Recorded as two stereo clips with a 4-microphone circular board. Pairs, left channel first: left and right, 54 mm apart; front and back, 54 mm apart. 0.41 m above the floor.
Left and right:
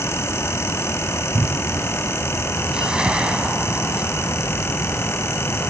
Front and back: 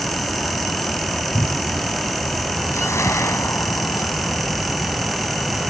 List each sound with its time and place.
1.3 s a cupboard door: 50° right
2.7 s a whoosh: 20° right